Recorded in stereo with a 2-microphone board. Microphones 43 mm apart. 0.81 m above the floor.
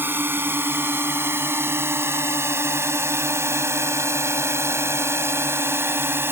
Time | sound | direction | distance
0.0 | a drone | 50° right (ahead or behind) | ?